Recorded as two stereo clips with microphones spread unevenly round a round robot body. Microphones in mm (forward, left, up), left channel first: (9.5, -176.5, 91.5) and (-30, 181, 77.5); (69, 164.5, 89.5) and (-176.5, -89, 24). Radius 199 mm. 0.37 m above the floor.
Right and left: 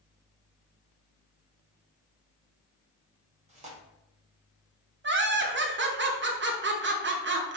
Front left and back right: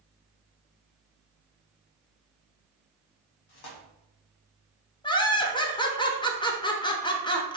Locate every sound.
3.5 s tearing paper: 30° left, 1.5 m
5.0 s laughter: 130° left, 0.9 m